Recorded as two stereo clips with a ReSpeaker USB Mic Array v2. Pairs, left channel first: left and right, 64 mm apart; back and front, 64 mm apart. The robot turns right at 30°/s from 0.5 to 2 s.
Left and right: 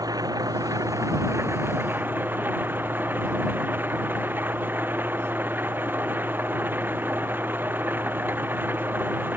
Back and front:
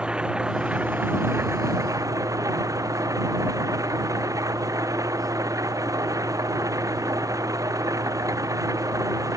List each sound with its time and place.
0.0 s an engine running: 75° right; by 9.4 s 30° right